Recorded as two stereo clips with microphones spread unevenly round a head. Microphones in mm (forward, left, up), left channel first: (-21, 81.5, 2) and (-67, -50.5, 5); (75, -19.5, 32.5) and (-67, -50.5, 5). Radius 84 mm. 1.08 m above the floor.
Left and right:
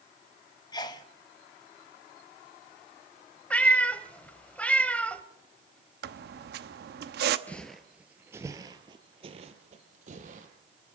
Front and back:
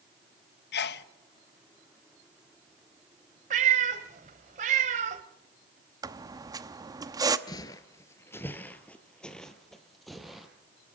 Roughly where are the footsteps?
Ahead.